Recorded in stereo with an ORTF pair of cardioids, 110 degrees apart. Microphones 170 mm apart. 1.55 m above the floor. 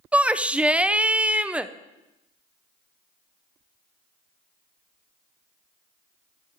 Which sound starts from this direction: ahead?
A shout, at 0.1 s.